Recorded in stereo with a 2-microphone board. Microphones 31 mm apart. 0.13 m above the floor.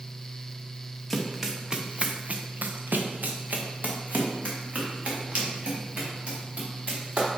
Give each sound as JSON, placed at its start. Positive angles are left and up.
{"t": 1.1, "sound": "running footsteps", "side_deg": 0, "distance_m": 1.4}